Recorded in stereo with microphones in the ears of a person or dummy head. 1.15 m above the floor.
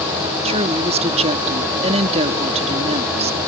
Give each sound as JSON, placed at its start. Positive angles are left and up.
{"t": 0.5, "sound": "a woman speaking", "side_deg": -35}